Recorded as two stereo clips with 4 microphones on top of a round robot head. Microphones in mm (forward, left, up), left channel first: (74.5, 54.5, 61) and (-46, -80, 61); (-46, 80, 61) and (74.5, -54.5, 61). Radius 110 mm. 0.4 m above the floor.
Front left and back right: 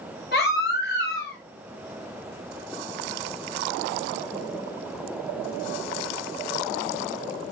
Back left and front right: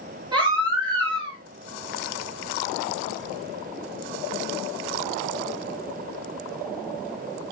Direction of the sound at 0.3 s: 15° left.